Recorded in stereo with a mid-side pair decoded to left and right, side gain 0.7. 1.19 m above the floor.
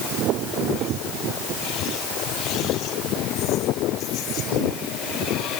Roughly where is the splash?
I don't hear a splash.